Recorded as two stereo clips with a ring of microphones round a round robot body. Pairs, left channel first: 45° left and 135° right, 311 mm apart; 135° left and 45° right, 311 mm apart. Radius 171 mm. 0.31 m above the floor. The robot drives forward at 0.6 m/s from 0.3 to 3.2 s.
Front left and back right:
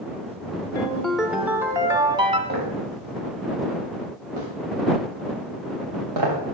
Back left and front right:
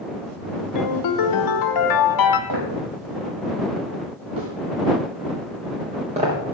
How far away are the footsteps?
About 8.5 m.